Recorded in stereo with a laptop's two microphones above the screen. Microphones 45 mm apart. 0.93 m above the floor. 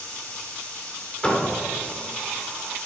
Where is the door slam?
20° left (ahead or behind), 1.8 m.